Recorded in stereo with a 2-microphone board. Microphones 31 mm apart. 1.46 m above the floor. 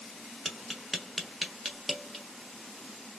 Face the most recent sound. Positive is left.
turn(degrees=-5)  # may be behind; listen again after turning